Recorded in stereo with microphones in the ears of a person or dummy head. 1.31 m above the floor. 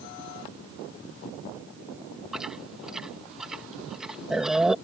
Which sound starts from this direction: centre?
Chewing, at 2.3 s.